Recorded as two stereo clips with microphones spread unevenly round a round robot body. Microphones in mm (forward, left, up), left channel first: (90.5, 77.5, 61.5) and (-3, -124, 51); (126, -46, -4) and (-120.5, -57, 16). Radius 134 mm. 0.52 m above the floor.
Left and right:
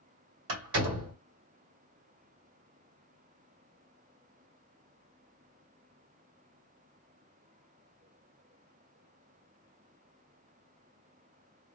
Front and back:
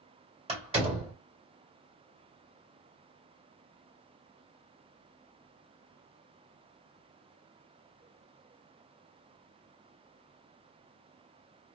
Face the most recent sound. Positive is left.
turn(degrees=-110)